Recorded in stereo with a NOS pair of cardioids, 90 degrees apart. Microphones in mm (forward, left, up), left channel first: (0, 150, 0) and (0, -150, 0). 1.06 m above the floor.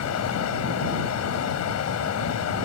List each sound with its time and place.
0.0 s running water: 60° left